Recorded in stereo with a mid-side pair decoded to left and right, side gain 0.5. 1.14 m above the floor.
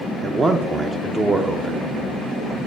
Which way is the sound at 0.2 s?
30° right.